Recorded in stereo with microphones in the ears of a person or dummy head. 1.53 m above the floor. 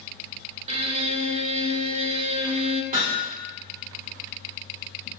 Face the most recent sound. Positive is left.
turn(degrees=-40)  # may be behind; listen again after turning